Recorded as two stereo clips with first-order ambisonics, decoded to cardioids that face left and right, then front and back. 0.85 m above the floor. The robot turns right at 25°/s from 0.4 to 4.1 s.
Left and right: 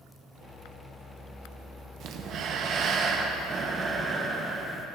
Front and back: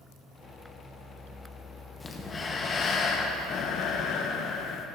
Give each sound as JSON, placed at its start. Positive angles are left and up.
{"t": 2.0, "sound": "breathing", "azimuth_deg": -75, "distance_m": 0.5}